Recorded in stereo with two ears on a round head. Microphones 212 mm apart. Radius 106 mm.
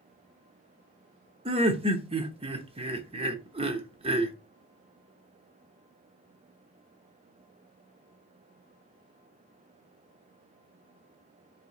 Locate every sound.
1.4 s laughter: 25° right (ahead or behind), 0.8 m